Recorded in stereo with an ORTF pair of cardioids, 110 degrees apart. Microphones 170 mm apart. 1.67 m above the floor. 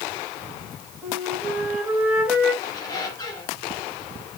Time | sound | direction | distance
1.0 | a flute | 5° right | 2 m
2.6 | a squeak | 25° left | 2.0 m